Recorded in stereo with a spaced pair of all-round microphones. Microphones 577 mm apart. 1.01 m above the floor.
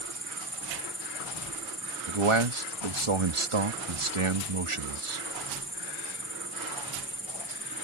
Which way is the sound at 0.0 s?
20° left (ahead or behind).